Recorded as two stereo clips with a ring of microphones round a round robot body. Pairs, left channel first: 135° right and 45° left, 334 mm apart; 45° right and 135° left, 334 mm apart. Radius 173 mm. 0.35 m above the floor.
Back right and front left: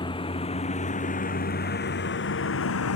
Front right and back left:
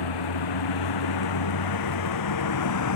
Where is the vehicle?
60° right; by 3.0 s 85° right.